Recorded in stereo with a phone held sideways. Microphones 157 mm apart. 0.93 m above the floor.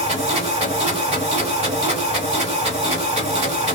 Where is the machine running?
45° right (ahead or behind), 1.5 m.